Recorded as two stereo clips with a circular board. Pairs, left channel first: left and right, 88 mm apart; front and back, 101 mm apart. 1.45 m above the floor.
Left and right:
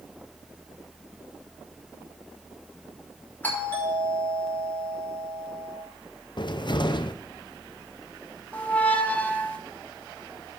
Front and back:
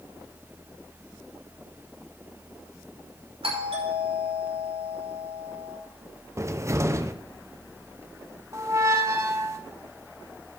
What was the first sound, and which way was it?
A doorbell, 160° left.